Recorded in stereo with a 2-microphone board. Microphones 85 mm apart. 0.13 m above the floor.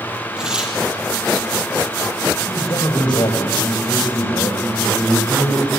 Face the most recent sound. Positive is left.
turn(degrees=50)  # may be behind; listen again after turning